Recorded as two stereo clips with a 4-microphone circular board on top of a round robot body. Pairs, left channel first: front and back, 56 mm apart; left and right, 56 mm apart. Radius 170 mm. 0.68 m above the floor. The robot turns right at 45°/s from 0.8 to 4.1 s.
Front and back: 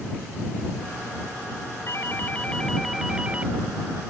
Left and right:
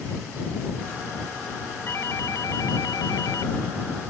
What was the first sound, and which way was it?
A doorbell, 40° left.